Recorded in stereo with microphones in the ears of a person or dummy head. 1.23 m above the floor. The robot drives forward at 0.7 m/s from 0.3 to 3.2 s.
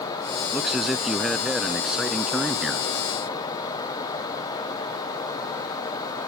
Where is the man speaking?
5° right (ahead or behind).